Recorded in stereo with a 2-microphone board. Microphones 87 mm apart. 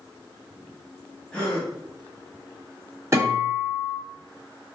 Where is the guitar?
25° right (ahead or behind), 1.5 m.